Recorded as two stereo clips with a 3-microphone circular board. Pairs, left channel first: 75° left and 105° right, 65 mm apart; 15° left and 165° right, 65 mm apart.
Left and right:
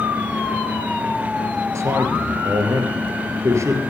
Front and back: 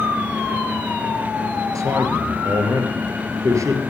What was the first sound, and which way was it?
A man speaking, 140° right.